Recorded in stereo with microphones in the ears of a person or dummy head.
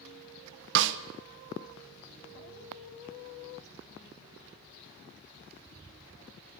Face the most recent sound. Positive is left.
turn(degrees=-70)  # may be behind; listen again after turning